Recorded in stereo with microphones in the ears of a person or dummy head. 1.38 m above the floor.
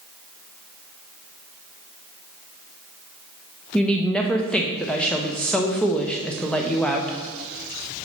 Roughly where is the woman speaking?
Centre.